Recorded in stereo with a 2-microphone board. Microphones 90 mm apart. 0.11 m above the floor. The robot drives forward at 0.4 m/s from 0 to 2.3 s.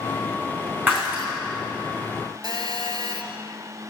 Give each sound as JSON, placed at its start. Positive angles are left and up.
{"t": 0.9, "sound": "breaking glass", "side_deg": -20, "distance_m": 3.5}
{"t": 2.4, "sound": "a phone buzzing", "side_deg": -50, "distance_m": 1.1}